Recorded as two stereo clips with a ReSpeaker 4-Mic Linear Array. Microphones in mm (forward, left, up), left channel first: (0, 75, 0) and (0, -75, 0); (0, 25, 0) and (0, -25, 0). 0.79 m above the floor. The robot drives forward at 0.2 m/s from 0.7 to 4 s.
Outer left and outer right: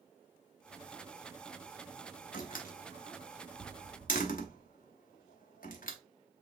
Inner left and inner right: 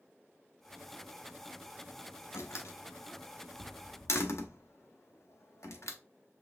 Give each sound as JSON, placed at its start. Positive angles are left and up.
{"t": 2.3, "sound": "a door slam", "side_deg": 75, "distance_m": 1.0}